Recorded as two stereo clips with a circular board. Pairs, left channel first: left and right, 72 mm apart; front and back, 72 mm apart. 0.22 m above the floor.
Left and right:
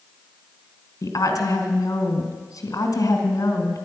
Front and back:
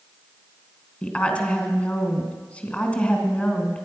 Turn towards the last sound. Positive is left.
turn(degrees=65)